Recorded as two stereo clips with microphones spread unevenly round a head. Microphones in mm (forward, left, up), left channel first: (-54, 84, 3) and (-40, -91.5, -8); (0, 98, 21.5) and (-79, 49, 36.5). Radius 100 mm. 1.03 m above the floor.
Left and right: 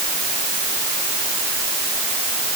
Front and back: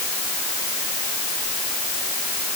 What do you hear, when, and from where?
Only background noise.